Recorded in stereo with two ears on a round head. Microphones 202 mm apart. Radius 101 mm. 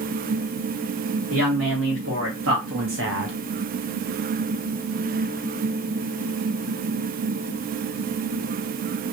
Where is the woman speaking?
65° right (ahead or behind), 2.5 m; by 3.4 s 50° right (ahead or behind), 0.6 m.